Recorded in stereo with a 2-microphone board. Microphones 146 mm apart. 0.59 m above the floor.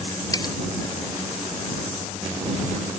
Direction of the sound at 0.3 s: 25° left (ahead or behind).